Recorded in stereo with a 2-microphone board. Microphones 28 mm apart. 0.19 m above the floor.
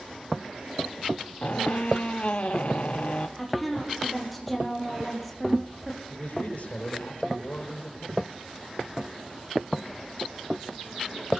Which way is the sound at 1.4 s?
50° left (ahead or behind).